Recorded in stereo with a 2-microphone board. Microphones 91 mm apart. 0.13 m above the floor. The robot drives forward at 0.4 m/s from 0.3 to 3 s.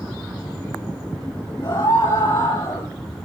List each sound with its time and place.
1.6 s a scream: 55° left (ahead or behind), 3.5 m